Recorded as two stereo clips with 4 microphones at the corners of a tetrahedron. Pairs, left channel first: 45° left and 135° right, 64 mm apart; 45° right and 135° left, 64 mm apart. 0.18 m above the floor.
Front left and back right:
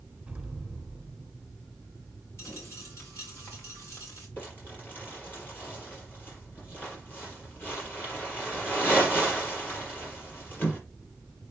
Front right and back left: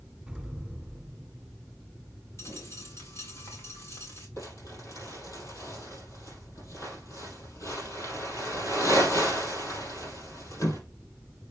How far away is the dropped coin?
About 4.5 m.